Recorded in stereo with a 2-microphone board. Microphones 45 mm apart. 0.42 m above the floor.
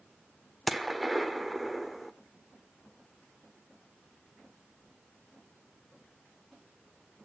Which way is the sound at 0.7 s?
Centre (ahead or behind).